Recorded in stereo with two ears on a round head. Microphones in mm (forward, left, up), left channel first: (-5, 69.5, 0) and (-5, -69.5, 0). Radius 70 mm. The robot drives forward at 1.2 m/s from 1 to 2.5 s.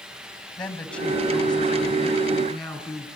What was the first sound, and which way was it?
A woman speaking, 5° left (ahead or behind).